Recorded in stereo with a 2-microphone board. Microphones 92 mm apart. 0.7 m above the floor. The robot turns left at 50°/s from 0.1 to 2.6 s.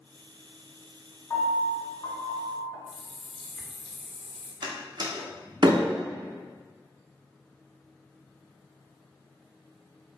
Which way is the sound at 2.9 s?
Centre (ahead or behind).